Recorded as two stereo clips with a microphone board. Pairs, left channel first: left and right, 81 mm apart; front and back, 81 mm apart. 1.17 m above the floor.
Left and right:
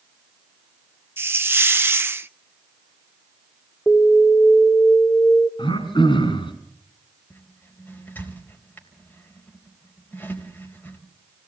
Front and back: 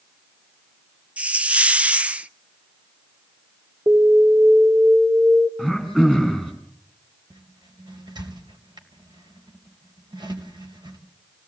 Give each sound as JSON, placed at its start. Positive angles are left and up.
{"t": 1.2, "sound": "a hiss", "azimuth_deg": -120, "distance_m": 0.5}
{"t": 3.9, "sound": "an alarm", "azimuth_deg": 165, "distance_m": 2.5}
{"t": 5.6, "sound": "throat clearing", "azimuth_deg": 100, "distance_m": 5.5}
{"t": 7.3, "sound": "a squeak", "azimuth_deg": 155, "distance_m": 3.5}